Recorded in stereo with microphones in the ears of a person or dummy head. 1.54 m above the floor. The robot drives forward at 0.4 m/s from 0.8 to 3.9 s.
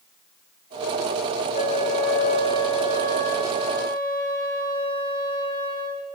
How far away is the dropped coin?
No dropped coin in this recording.